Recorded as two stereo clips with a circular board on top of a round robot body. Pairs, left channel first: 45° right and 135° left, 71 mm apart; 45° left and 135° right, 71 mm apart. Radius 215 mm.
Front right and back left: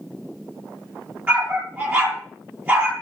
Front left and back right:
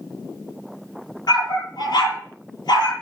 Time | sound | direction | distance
1.3 | a dog barking | 70° left | 8.5 m